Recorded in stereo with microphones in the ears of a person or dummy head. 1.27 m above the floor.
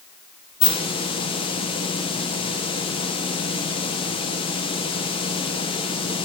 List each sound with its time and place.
0.6 s a hiss: 25° left (ahead or behind), 1.0 m